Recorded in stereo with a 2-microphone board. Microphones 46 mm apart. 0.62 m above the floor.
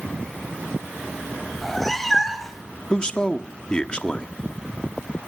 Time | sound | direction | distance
1.6 | a cat meowing | 5° left (ahead or behind) | 1.8 m
2.9 | a man speaking | 20° left (ahead or behind) | 1.0 m